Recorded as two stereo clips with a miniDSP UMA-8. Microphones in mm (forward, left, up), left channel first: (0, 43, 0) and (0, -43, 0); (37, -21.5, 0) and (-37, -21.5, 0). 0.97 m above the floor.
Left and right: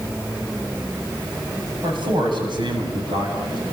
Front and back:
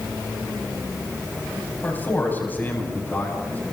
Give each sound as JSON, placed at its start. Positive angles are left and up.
{"t": 1.8, "sound": "a man speaking", "azimuth_deg": -65, "distance_m": 8.0}